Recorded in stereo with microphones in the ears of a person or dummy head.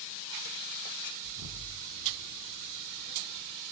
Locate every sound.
1.2 s an explosion: 70° right (ahead or behind), 1.4 m